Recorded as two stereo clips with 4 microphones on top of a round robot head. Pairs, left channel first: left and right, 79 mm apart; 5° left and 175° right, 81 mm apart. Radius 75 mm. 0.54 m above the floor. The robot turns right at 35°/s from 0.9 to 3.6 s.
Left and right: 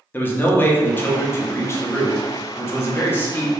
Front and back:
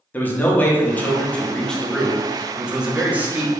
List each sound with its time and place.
0.1 s a man speaking: 50° left, 0.8 m; by 3.5 s 140° left, 0.8 m